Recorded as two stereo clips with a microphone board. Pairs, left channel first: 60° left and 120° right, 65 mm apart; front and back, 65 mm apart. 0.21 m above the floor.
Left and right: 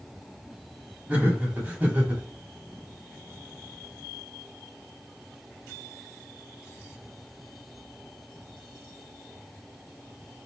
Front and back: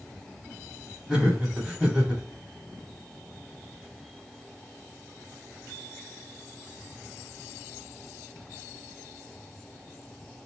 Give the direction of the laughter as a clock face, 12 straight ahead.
4 o'clock.